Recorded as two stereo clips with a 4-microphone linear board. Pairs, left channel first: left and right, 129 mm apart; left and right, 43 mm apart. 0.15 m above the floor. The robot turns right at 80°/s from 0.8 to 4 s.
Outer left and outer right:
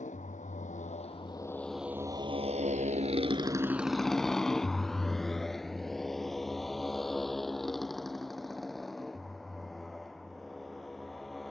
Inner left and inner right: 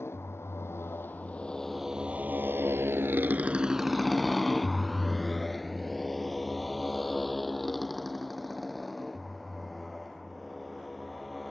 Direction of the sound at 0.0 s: 75° left (ahead or behind).